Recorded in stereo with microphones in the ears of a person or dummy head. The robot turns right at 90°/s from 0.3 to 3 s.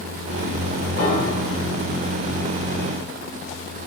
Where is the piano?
55° left, 2.5 m; by 1.6 s 115° left, 2.5 m.